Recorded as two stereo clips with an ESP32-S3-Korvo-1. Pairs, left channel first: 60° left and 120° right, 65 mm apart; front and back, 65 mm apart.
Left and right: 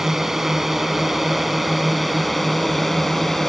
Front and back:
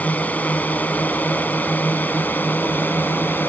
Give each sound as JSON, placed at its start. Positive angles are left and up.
{"t": 0.0, "sound": "a drone", "azimuth_deg": -40}